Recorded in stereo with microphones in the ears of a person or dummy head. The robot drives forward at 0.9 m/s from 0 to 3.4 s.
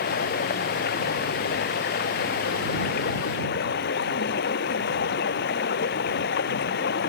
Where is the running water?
50° left (ahead or behind); by 7.1 s 55° left (ahead or behind).